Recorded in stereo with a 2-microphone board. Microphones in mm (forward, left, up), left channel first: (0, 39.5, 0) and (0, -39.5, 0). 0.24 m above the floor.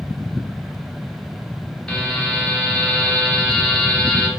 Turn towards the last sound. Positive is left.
turn(degrees=10)  # may be behind; listen again after turning